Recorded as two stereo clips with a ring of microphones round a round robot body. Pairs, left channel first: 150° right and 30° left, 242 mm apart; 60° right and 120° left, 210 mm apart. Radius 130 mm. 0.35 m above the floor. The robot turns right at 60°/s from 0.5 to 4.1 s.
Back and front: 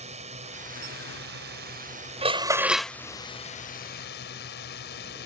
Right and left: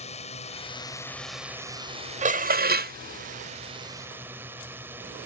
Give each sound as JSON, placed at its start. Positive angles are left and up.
{"t": 0.0, "sound": "a drone", "azimuth_deg": -20}
{"t": 2.2, "sound": "dishes clattering", "azimuth_deg": 85}